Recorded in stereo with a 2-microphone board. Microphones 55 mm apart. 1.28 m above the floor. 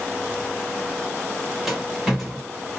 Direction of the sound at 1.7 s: 5° right (ahead or behind).